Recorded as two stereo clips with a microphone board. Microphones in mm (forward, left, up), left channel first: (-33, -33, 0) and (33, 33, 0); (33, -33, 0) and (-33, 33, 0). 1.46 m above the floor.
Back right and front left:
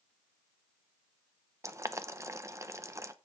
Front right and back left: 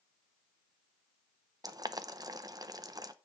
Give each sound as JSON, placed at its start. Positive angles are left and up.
{"t": 1.6, "sound": "boiling", "azimuth_deg": 95, "distance_m": 0.7}